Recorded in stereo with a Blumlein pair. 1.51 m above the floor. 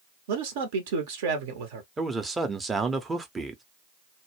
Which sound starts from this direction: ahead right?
A man speaking, at 0.3 s.